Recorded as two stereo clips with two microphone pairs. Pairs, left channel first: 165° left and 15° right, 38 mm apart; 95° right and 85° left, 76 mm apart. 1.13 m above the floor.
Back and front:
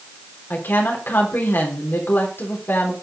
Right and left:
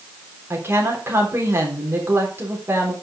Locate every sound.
0.5 s a woman speaking: 140° left, 3.5 m